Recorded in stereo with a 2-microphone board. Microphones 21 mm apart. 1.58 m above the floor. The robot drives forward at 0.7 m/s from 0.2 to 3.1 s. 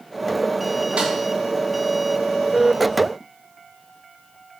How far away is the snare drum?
About 2.5 m.